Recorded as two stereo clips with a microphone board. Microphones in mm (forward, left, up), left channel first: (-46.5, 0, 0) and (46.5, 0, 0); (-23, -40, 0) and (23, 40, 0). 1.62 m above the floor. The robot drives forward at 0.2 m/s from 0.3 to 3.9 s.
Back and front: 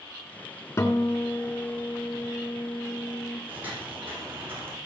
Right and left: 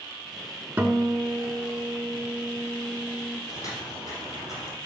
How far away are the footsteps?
About 4.5 m.